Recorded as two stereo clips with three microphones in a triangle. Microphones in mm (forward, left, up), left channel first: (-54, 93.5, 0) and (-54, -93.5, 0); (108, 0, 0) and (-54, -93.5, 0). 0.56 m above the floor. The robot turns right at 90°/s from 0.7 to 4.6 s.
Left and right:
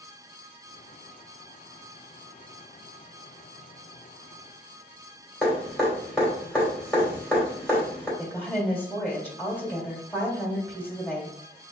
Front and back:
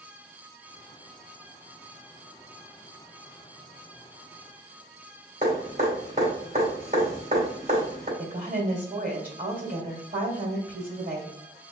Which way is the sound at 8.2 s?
170° left.